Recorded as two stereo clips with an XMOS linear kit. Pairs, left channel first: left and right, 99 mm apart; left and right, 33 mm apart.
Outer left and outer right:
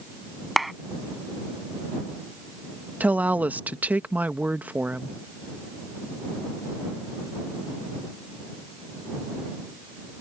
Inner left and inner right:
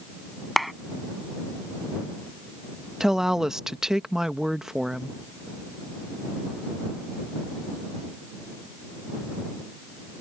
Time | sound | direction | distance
0.6 | a clap | centre (ahead or behind) | ?
3.0 | a woman speaking | 15° right (ahead or behind) | ?